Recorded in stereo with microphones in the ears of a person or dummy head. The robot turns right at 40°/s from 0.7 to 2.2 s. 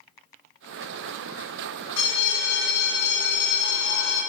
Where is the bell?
75° left (ahead or behind), 1.2 m; by 4.2 s 70° left (ahead or behind), 1.2 m.